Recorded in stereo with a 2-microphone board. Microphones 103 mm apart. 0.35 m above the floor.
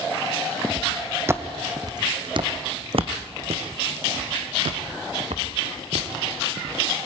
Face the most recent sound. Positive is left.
turn(degrees=-80)